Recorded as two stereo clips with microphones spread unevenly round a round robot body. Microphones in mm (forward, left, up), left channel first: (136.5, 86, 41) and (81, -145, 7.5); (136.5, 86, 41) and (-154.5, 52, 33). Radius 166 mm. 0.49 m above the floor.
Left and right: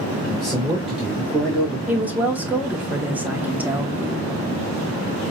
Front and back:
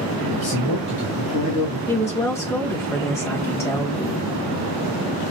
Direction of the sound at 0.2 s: 15° right.